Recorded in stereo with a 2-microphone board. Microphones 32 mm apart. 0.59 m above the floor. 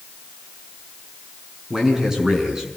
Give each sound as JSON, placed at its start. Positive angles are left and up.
{"t": 1.7, "sound": "a man speaking", "side_deg": -15, "distance_m": 5.5}